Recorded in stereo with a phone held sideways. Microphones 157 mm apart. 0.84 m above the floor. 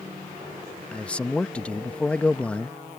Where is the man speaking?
5° left (ahead or behind).